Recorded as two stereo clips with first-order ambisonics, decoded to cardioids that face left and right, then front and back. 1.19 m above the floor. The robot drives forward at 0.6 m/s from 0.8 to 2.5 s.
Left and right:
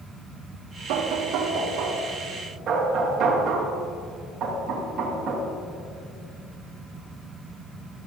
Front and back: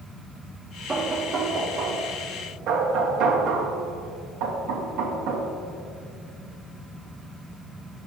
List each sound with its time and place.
0.9 s knocking: 95° right, 0.8 m; by 5.5 s 140° right, 1.3 m